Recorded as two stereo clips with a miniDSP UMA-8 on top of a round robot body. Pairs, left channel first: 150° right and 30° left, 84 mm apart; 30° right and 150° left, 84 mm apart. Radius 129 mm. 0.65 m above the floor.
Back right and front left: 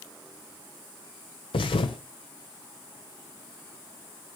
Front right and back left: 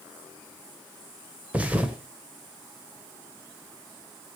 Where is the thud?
135° right, 1.9 m.